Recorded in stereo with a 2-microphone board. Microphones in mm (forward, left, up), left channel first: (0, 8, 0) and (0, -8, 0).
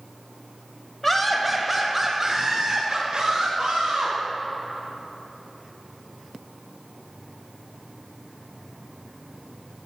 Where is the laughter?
15° left (ahead or behind), 1.0 m; by 4.2 s 55° right (ahead or behind), 1.7 m.